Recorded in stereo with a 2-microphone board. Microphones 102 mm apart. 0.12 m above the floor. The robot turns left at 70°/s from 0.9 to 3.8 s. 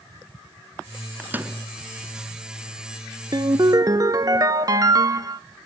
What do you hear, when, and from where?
1.2 s a microwave: 20° right (ahead or behind), 1.0 m; by 1.6 s 15° right (ahead or behind), 1.0 m
3.3 s a ringtone: 85° right, 0.6 m; by 5.4 s 115° right, 0.6 m